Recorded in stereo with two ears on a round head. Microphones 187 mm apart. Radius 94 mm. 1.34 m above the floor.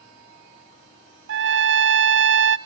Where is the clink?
I don't hear a clink.